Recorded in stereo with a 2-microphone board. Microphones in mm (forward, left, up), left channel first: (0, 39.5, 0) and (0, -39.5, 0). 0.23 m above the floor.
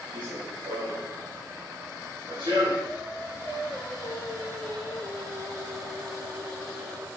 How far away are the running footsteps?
About 7.5 m.